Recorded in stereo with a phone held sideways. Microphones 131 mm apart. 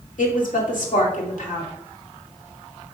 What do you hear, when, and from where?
0.2 s a woman speaking: 85° left, 2 m